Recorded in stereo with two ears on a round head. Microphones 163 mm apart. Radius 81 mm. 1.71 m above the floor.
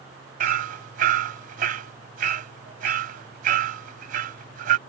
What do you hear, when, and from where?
0.4 s hammering: 50° right (ahead or behind)